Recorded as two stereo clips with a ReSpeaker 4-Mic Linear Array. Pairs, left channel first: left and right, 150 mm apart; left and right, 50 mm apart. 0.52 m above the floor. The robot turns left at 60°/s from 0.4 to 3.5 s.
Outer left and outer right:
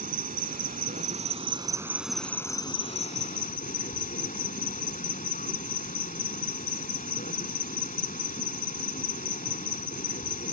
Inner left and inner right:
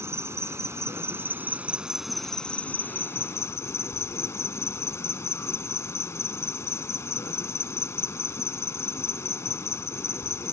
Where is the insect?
75° right; by 10.5 s 95° left.